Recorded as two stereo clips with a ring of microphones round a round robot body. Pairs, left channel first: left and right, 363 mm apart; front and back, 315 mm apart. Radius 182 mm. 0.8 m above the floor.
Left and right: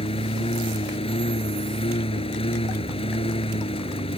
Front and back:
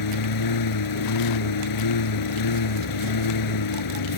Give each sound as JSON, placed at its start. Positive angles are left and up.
{"t": 0.0, "sound": "a lawn mower", "azimuth_deg": 15}